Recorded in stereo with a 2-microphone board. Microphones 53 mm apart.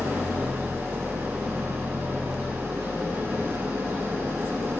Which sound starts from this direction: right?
An engine running, at 0.0 s.